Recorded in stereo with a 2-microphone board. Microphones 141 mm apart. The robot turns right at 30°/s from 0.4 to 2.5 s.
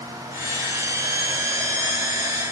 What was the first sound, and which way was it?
Only background noise.